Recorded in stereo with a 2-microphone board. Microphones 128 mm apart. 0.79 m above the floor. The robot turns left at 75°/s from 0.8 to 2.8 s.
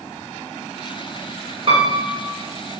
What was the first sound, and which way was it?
A piano, 130° right.